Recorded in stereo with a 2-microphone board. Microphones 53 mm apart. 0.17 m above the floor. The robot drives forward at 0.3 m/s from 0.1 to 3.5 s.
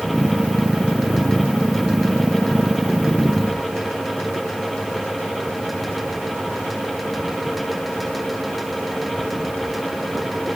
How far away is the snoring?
I don't hear snoring.